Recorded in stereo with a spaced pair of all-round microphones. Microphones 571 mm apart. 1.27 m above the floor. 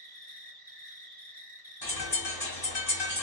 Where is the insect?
60° right (ahead or behind), 0.9 m.